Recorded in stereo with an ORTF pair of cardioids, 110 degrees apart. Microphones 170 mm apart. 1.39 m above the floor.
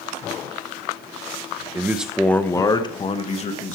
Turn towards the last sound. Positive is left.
turn(degrees=45)